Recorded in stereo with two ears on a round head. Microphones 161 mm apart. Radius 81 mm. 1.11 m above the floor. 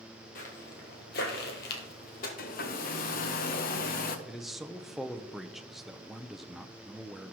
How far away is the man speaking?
About 0.6 m.